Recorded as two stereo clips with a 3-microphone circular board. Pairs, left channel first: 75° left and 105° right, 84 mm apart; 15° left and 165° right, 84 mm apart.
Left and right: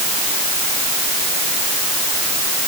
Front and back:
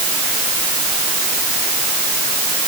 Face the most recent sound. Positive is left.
No sound to turn to.